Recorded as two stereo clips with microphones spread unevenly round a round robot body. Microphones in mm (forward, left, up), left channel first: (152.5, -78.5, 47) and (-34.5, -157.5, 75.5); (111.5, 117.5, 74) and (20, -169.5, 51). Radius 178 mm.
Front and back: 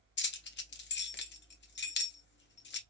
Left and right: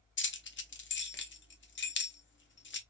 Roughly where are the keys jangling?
Ahead.